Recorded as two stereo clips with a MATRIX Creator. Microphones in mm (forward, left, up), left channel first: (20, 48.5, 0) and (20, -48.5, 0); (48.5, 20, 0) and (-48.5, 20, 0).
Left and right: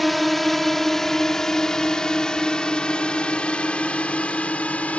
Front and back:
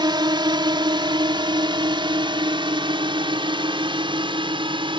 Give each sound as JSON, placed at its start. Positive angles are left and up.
{"t": 0.0, "sound": "a drone", "azimuth_deg": 180}